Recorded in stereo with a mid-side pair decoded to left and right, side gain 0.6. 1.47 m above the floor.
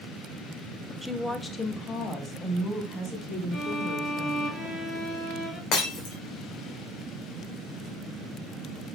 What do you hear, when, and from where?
1.0 s a woman speaking: 5° right, 0.9 m; by 4.5 s 45° left, 6 m
3.5 s a violin: 40° left, 5 m
5.7 s breaking glass: 65° left, 3.5 m